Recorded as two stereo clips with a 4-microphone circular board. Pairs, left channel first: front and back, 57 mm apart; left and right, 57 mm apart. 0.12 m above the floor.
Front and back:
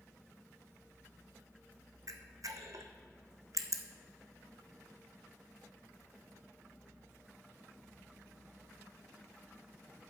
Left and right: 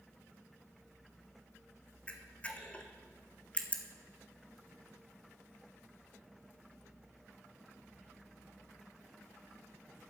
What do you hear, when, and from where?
2.1 s a camera shutter: 155° left, 1.0 m